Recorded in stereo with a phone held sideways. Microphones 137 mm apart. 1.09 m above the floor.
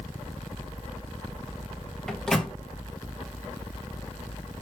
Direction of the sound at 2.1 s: 5° left (ahead or behind).